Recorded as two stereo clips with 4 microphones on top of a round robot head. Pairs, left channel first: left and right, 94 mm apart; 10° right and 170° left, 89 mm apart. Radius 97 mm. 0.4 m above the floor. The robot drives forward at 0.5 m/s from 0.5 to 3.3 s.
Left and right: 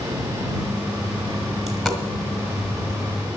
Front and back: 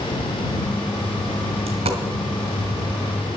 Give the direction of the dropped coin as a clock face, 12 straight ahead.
6 o'clock.